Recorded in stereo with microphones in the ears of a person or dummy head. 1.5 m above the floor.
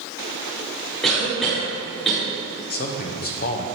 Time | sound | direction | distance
1.0 | a cough | 5° left (ahead or behind) | 1.3 m
2.7 | a man speaking | 45° left (ahead or behind) | 0.8 m